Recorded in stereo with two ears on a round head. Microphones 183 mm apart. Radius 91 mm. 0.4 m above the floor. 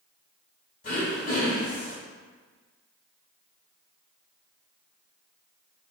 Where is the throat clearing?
45° left (ahead or behind), 1.6 m.